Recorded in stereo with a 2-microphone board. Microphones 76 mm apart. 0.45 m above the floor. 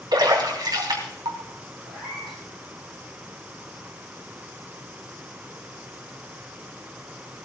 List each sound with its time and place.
0.1 s a splash: 65° right (ahead or behind), 3 m
1.9 s a cat meowing: centre (ahead or behind), 7.5 m